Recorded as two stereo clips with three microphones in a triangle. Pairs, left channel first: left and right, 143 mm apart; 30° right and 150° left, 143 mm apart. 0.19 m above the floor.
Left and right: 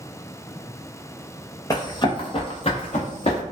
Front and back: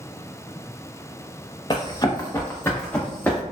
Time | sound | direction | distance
1.7 | running footsteps | 25° left | 0.8 m